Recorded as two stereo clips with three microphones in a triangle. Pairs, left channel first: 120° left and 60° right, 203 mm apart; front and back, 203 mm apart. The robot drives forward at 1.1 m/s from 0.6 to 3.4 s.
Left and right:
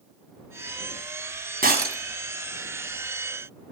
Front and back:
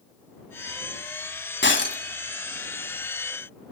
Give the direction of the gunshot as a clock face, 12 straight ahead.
No gunshot in this recording.